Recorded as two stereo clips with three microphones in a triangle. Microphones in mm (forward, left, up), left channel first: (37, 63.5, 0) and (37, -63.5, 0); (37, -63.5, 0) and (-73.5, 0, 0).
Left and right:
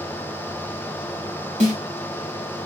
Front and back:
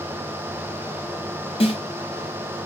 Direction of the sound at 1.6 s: 70° right.